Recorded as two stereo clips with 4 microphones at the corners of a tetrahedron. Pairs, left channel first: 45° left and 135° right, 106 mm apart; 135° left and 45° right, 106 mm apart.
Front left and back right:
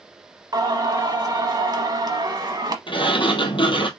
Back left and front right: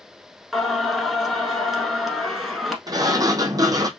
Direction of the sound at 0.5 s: 135° right.